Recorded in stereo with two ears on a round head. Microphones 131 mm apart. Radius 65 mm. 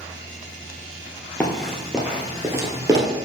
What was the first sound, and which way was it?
Running footsteps, 5° left (ahead or behind).